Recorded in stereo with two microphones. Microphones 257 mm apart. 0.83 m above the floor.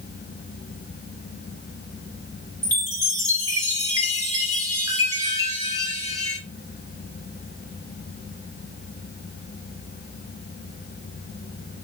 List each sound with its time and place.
2.6 s a chime: 15° right (ahead or behind), 2 m